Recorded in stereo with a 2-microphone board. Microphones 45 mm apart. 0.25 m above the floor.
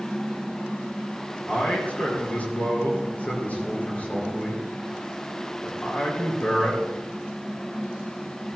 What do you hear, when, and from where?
1.5 s a man speaking: 35° left (ahead or behind), 5 m